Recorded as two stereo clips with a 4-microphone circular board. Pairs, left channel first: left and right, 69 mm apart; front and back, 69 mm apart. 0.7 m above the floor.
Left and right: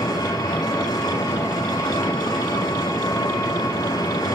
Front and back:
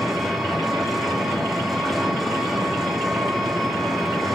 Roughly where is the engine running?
Left.